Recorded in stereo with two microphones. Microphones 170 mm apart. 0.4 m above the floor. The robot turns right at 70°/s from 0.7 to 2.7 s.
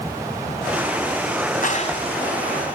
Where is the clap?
50° left (ahead or behind), 3 m; by 2.0 s 25° left (ahead or behind), 3 m.